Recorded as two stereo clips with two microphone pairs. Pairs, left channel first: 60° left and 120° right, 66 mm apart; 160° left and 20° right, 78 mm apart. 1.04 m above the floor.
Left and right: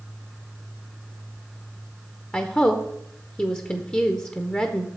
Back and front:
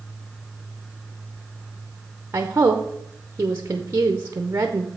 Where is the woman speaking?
10° left, 0.7 m.